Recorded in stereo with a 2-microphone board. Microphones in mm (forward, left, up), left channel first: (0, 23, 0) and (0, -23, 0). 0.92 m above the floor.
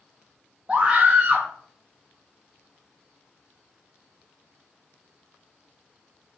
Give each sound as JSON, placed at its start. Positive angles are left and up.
{"t": 0.7, "sound": "a scream", "side_deg": -25, "distance_m": 0.7}